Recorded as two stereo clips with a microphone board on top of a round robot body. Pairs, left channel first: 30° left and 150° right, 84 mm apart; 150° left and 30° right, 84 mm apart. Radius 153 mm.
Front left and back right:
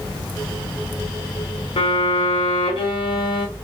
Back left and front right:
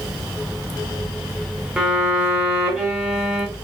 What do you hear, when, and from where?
1.8 s a violin: 50° left, 0.7 m